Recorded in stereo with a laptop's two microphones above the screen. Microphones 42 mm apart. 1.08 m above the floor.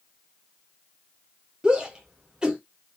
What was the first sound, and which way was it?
A shout, 20° right (ahead or behind).